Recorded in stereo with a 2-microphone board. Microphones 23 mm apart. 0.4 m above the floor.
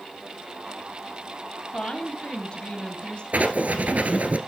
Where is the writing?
75° right (ahead or behind), 1.5 m.